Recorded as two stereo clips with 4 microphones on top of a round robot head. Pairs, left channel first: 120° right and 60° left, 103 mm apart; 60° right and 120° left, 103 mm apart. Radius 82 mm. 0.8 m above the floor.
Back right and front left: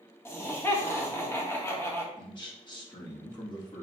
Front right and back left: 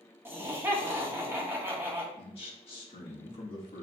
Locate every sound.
0.2 s laughter: straight behind, 1.4 m
2.2 s a man speaking: 80° right, 1.6 m